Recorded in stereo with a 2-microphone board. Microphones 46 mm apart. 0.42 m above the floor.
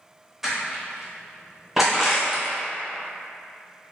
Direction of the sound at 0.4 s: 5° right (ahead or behind).